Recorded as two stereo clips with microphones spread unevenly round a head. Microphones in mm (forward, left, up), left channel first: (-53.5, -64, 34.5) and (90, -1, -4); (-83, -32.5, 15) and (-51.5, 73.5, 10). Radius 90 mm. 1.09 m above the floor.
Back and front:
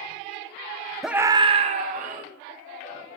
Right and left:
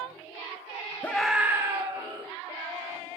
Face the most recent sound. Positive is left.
turn(degrees=20)